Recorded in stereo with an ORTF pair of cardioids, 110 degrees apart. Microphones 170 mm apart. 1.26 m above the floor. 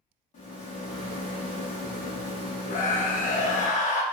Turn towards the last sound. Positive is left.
turn(degrees=50)